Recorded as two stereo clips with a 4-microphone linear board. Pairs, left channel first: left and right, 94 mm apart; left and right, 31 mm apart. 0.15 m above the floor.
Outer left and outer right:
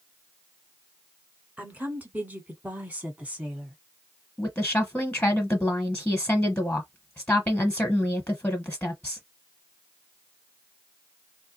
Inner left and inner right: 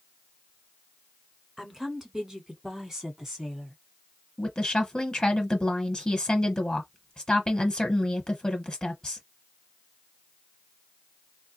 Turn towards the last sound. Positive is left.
turn(degrees=15)  # may be behind; listen again after turning